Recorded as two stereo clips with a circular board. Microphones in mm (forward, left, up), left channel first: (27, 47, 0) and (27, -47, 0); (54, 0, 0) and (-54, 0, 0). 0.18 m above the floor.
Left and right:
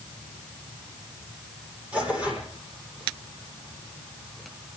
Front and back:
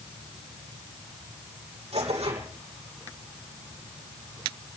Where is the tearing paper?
165° right, 7.5 m.